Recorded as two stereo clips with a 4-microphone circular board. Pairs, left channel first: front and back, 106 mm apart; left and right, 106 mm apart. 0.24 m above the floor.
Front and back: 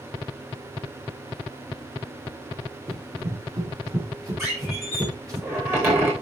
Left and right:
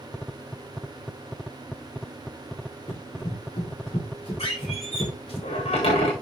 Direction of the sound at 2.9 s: 125° left.